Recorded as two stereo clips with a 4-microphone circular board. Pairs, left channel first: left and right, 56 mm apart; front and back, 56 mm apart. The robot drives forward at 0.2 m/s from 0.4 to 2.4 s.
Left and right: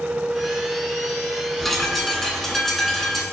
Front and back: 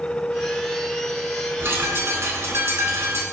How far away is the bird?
About 0.6 m.